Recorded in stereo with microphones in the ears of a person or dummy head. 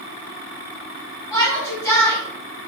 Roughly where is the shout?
Left.